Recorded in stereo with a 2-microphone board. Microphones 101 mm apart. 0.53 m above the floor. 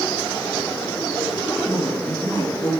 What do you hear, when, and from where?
1.6 s a woman speaking: 35° left (ahead or behind), 8 m; by 2.7 s 40° left (ahead or behind), 8.5 m